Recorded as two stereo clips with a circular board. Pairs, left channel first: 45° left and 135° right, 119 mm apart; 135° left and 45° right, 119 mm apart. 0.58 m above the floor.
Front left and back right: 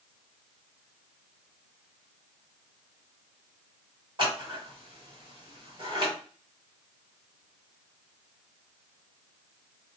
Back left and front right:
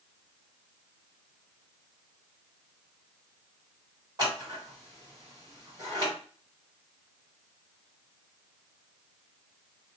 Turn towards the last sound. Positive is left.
turn(degrees=-95)